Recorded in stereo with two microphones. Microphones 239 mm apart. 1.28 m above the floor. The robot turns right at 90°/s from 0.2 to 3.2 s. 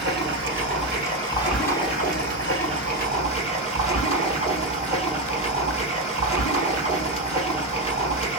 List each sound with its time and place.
0.0 s running water: 125° right, 2 m; by 8.4 s 145° left, 2 m